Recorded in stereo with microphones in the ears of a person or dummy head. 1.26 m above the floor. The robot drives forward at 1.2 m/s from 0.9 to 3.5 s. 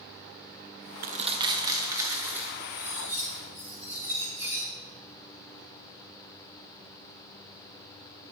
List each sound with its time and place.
1.0 s crumpling: 45° right (ahead or behind), 0.5 m; by 2.5 s 10° right (ahead or behind), 2 m
2.6 s cutlery clinking: 10° right (ahead or behind), 2.5 m